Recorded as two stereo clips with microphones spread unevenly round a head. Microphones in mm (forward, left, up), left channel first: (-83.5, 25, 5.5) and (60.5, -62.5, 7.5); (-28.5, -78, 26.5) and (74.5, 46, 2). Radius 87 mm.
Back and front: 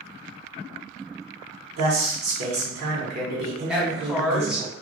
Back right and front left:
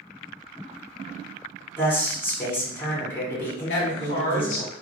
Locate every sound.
1.8 s a man speaking: 50° right, 1.4 m
3.7 s a woman speaking: 115° right, 1.1 m